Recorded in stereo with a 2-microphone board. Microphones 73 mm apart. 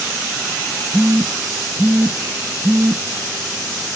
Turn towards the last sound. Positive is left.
turn(degrees=-25)  # may be behind; listen again after turning